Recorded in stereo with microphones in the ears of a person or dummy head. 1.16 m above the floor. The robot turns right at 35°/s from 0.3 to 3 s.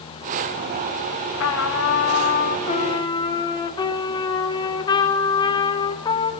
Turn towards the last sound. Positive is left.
turn(degrees=160)